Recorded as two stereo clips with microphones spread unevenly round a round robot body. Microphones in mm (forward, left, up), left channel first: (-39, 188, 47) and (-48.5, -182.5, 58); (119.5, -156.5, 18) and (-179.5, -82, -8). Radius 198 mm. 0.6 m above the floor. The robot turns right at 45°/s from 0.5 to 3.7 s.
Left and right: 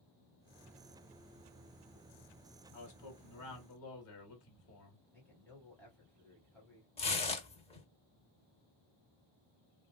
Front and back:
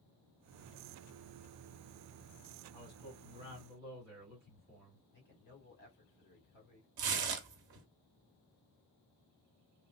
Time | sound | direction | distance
2.7 | a man speaking | 75° left | 1.7 m
5.1 | a man speaking | 5° left | 2 m
7.0 | tearing paper | 165° left | 0.8 m